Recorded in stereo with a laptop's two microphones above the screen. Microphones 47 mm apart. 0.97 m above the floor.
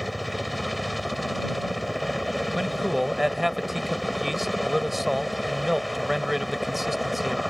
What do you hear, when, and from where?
0.0 s a helicopter: centre (ahead or behind)
2.5 s a man speaking: 5° right (ahead or behind)